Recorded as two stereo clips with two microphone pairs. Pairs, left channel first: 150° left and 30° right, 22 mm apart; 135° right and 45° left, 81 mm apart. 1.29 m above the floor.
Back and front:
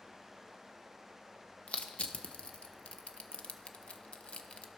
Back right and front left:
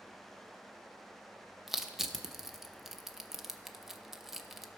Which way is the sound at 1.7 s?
130° left.